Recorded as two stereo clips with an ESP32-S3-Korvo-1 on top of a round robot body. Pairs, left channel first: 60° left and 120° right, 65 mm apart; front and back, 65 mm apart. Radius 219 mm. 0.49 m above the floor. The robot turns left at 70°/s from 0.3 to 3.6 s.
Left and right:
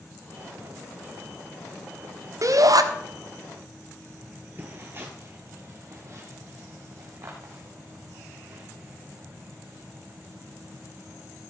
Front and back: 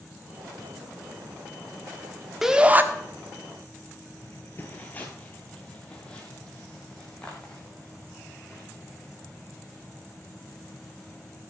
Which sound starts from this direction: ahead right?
Footsteps, at 4.2 s.